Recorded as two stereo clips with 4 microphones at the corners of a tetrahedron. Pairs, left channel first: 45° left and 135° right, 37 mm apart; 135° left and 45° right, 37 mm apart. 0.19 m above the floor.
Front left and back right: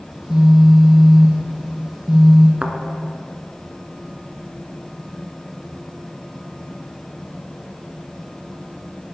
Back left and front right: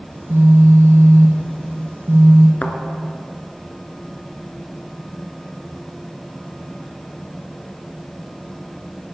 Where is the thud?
175° left, 1.2 m.